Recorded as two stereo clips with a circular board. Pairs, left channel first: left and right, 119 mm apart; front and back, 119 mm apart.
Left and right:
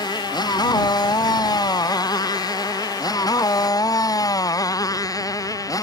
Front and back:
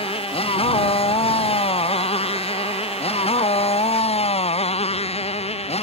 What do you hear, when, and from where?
0.0 s a motorcycle: 35° left; by 5.8 s 30° left